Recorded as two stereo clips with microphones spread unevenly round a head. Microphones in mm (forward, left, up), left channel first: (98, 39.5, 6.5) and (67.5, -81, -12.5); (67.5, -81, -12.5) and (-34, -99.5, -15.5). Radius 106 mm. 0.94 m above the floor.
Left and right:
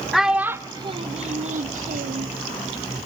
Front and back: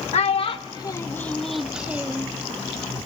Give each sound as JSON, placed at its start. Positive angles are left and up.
{"t": 0.1, "sound": "a child speaking", "azimuth_deg": -10, "distance_m": 0.8}